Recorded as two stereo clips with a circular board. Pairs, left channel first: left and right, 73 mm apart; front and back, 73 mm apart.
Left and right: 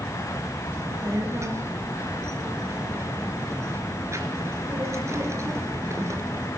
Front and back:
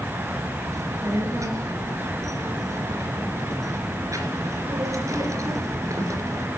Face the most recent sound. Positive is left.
turn(degrees=-140)